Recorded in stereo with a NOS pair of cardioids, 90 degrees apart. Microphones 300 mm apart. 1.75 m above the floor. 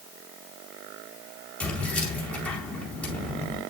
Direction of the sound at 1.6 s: 5° left.